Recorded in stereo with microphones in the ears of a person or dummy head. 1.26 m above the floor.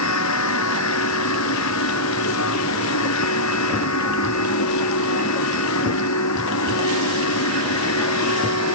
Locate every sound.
0.0 s a machine running: 85° left